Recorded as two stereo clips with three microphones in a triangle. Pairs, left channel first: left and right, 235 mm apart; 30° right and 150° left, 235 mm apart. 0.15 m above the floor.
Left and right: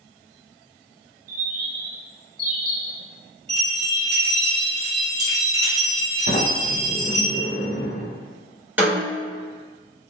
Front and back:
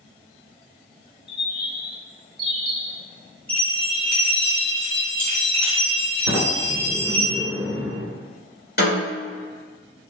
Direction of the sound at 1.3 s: 85° right.